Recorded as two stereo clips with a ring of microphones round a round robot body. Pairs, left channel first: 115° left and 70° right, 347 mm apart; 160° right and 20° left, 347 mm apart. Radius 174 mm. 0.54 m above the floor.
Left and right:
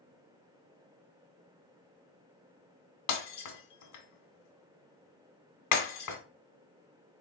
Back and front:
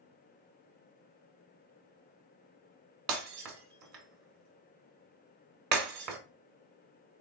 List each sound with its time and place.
3.1 s breaking glass: 70° left, 1.1 m